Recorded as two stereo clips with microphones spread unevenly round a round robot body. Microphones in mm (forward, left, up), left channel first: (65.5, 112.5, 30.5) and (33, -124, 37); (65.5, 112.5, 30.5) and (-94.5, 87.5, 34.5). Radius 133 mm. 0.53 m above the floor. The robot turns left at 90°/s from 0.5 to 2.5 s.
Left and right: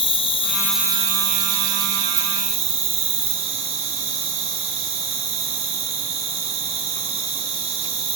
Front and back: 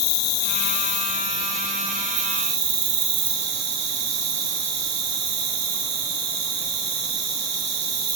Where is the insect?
15° left, 1.5 m; by 8.2 s 165° right, 1.5 m.